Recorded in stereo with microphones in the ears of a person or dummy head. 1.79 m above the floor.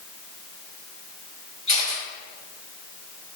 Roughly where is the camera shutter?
Left.